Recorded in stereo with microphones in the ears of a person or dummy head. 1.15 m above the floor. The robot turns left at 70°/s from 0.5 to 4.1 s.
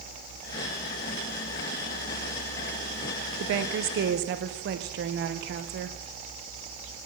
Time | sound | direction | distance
3.4 | a woman speaking | 70° right | 0.6 m